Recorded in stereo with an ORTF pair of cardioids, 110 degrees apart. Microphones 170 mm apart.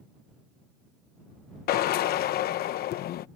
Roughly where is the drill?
Ahead left.